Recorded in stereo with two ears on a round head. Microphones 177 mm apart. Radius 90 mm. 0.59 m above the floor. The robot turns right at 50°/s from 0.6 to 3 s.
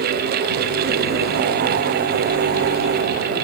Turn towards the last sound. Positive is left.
No sound to turn to.